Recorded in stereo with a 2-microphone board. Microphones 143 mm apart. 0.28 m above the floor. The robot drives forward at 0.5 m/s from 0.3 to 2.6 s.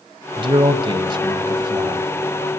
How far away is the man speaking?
About 1.6 m.